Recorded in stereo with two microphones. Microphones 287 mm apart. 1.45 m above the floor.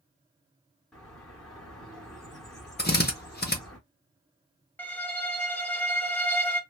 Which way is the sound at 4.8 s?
5° left (ahead or behind).